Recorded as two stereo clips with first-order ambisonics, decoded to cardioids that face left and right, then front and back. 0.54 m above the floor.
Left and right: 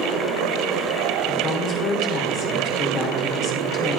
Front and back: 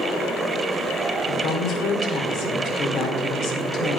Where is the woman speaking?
30° left, 1.6 m.